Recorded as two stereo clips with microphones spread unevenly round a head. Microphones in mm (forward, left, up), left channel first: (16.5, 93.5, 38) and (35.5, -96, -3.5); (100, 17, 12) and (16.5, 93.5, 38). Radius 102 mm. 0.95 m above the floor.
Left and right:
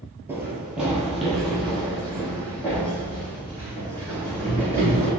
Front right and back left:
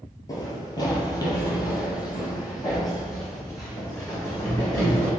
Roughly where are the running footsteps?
Ahead.